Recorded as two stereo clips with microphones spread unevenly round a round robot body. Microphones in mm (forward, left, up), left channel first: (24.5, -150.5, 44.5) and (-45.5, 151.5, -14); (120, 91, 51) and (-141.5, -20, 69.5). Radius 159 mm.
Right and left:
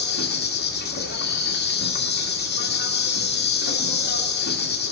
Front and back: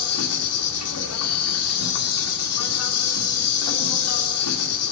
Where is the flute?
No flute in this recording.